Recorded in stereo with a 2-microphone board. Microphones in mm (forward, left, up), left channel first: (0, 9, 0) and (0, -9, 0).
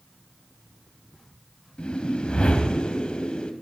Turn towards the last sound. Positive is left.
turn(degrees=65)  # may be behind; listen again after turning